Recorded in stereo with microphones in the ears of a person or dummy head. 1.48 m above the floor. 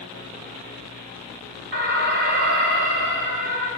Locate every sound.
1.7 s an alarm: 50° right (ahead or behind), 4 m